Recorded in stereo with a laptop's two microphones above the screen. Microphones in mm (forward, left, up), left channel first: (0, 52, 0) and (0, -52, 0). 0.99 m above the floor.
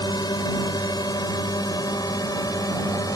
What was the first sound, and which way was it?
A drone, 45° left (ahead or behind).